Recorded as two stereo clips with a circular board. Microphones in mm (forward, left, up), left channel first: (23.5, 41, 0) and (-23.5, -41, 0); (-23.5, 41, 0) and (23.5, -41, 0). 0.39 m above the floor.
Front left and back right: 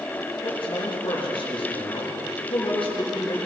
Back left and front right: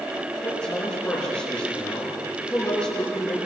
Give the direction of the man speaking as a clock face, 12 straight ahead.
11 o'clock.